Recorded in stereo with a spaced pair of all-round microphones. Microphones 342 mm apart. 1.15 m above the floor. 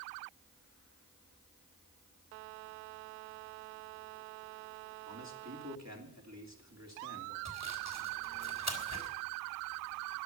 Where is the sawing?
50° right (ahead or behind), 3.5 m.